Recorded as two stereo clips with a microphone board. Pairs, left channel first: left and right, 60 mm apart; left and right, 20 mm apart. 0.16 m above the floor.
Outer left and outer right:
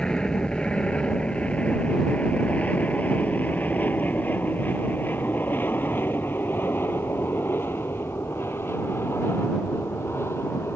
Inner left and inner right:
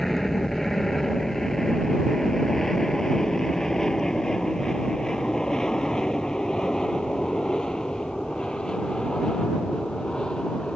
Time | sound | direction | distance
0.0 | an aircraft | 10° left (ahead or behind) | ?